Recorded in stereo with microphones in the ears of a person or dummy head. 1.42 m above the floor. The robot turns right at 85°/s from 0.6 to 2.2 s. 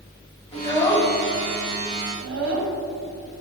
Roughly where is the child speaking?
Left.